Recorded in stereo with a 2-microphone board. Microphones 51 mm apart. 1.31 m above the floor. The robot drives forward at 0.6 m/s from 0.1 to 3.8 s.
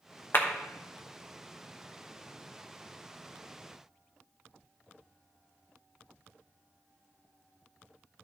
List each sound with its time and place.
0.3 s a clap: 45° left (ahead or behind), 1.1 m; by 0.5 s 50° left (ahead or behind), 1.0 m